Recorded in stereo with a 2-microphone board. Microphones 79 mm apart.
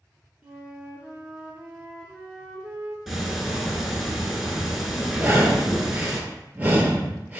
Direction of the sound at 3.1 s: Centre (ahead or behind).